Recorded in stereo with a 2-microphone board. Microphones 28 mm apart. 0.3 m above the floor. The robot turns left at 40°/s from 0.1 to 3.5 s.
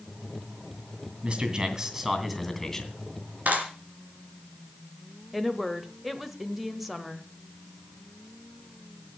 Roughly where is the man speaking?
Behind right.